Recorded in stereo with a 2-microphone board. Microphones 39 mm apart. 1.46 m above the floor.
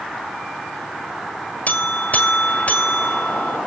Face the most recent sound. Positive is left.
turn(degrees=40)  # may be behind; listen again after turning